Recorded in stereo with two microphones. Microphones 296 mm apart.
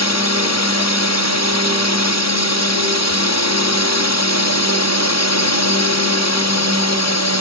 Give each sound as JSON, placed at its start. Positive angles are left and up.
{"t": 0.0, "sound": "a drone", "side_deg": 60}